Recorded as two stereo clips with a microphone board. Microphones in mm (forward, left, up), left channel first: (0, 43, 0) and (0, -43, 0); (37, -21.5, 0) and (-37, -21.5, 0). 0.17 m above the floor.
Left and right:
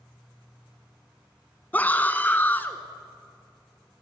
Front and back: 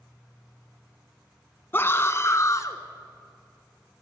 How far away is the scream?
About 1.2 m.